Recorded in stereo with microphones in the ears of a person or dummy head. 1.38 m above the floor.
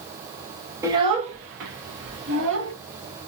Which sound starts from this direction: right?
A child speaking, at 0.8 s.